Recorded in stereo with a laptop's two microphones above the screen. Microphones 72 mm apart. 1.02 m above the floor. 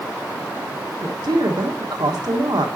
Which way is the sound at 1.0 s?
70° right (ahead or behind).